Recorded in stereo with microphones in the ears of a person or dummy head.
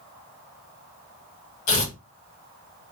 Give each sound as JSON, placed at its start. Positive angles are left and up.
{"t": 1.7, "sound": "tearing paper", "side_deg": 65, "distance_m": 2.0}